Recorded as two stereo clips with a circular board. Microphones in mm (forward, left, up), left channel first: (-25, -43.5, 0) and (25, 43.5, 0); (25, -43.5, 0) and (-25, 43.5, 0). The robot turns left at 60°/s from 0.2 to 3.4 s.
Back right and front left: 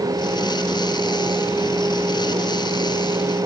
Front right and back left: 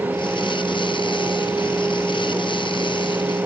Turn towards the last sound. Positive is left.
No sound to turn to.